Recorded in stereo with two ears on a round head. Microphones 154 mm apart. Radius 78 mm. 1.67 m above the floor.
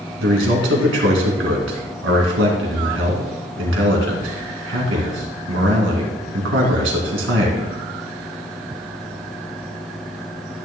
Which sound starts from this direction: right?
A man speaking, at 0.2 s.